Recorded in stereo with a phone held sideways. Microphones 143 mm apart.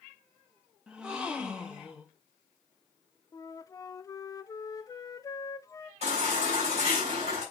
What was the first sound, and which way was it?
A gasp, 5° right (ahead or behind).